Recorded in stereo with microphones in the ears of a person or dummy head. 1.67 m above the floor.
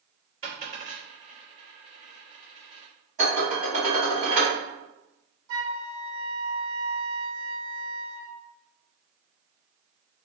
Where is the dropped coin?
45° right (ahead or behind), 2.0 m.